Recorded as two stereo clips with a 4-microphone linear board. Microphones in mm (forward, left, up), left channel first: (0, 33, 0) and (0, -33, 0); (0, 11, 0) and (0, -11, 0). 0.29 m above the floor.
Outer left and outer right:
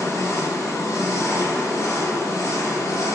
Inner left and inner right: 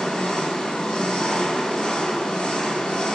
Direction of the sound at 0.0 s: 55° left (ahead or behind).